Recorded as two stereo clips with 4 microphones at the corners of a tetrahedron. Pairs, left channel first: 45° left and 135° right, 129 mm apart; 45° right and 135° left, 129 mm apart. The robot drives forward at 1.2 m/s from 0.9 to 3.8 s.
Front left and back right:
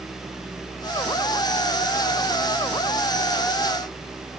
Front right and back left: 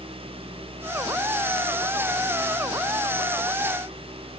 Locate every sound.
Only background noise.